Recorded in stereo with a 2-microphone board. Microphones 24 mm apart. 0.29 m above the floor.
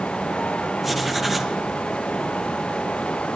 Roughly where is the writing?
Centre.